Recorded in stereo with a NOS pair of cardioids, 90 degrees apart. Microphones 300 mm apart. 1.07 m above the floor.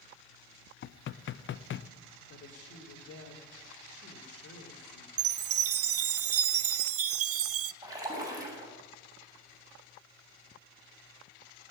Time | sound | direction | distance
0.8 | knocking | 45° left | 0.6 m
2.3 | a woman speaking | 55° left | 3.5 m
5.2 | a chime | 55° right | 0.7 m
7.8 | a splash | 10° right | 6 m